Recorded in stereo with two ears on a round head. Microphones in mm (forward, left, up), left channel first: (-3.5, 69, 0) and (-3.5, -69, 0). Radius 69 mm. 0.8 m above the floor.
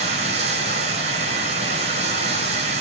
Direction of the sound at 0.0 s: 45° right (ahead or behind).